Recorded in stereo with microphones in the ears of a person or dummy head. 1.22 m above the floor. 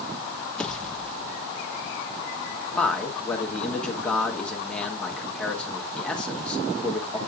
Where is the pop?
5° left (ahead or behind), 0.8 m.